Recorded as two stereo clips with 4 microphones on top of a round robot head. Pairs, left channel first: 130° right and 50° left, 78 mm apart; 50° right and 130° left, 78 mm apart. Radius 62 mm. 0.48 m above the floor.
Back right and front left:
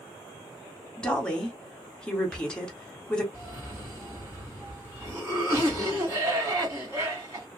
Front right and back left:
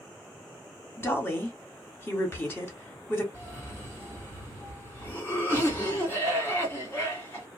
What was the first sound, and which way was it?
A woman speaking, 65° right.